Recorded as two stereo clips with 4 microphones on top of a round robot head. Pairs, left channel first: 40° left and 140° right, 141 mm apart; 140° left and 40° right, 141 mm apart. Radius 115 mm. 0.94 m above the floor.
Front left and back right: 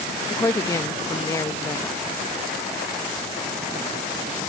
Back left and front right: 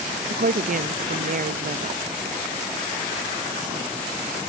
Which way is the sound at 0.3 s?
30° right.